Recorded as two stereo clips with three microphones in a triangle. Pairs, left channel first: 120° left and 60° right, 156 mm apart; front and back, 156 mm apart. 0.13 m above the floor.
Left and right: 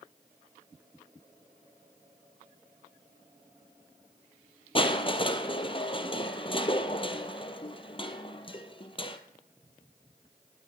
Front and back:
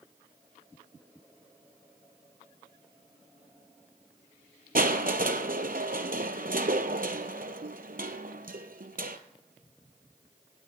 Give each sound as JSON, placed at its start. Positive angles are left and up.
{"t": 4.8, "sound": "crushing", "azimuth_deg": 170, "distance_m": 0.9}